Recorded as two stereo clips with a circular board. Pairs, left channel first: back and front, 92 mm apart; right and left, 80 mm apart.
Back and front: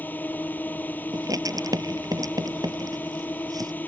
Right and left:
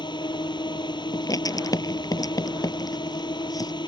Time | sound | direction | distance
0.0 | a drone | 110° right | ?
1.1 | writing | 50° right | ?